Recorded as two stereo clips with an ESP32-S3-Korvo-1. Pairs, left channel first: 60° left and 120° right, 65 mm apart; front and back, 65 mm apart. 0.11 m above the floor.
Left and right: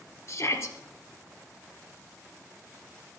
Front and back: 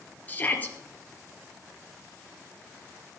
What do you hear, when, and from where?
0.3 s a shout: 55° left, 2.5 m